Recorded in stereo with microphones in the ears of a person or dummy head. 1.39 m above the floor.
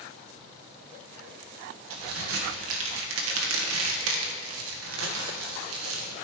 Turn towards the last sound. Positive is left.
turn(degrees=-75)  # may be behind; listen again after turning